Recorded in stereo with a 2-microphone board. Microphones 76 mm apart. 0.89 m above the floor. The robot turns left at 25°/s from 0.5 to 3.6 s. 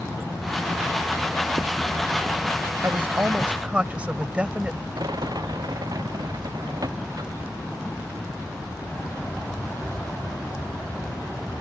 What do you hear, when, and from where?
2.8 s a woman speaking: 35° right (ahead or behind); by 4.8 s 15° right (ahead or behind)
5.0 s a rattle: 60° right (ahead or behind)